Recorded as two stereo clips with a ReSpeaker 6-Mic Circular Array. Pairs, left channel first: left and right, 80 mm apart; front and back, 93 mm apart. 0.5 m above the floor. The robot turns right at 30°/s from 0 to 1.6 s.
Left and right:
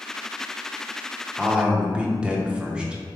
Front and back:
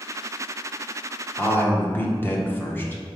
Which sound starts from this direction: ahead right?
A man speaking, at 1.4 s.